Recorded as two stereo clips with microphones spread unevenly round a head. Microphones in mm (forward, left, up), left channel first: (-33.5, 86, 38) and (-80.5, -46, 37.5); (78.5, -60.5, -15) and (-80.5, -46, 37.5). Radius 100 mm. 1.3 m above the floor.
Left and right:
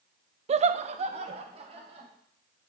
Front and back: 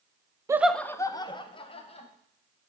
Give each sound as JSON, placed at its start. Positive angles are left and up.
{"t": 0.5, "sound": "laughter", "azimuth_deg": -100, "distance_m": 0.5}